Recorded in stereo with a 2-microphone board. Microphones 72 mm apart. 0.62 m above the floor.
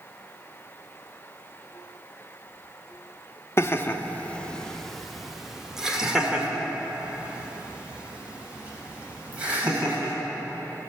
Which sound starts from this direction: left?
Laughter, at 3.6 s.